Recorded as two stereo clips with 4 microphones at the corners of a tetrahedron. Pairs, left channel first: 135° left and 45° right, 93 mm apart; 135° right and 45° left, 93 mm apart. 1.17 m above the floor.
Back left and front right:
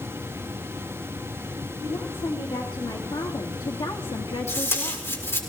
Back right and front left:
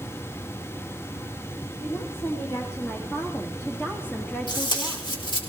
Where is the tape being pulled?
165° right, 4.5 m.